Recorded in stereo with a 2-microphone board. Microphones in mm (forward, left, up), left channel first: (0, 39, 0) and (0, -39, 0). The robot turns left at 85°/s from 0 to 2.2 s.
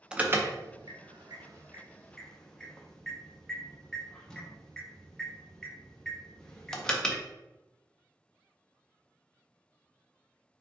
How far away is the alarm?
About 0.5 m.